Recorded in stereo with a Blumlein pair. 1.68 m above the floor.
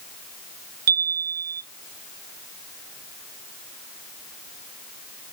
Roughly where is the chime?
Ahead right.